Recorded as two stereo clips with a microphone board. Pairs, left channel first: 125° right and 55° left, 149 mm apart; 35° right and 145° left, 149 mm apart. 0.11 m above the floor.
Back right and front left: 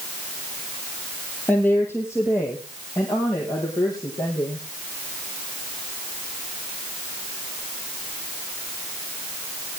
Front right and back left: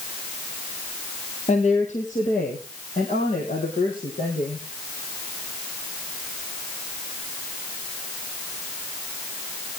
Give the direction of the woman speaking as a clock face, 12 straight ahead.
2 o'clock.